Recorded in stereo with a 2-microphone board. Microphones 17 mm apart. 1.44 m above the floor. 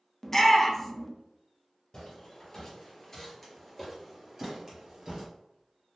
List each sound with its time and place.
0.2 s a shout: 20° left (ahead or behind), 0.7 m
1.9 s footsteps: 40° left (ahead or behind), 1.8 m; by 5.2 s 30° right (ahead or behind), 1.7 m